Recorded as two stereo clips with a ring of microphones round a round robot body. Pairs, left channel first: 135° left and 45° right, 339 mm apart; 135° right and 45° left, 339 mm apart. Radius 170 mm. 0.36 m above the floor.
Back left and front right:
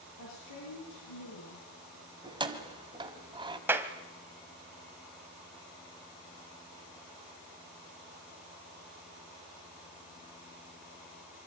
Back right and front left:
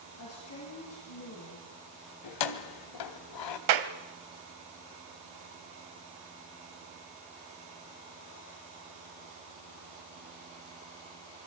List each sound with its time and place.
0.2 s a woman speaking: 175° left, 7 m
2.2 s keys jangling: 120° right, 1.8 m
3.7 s a clap: 40° left, 1.6 m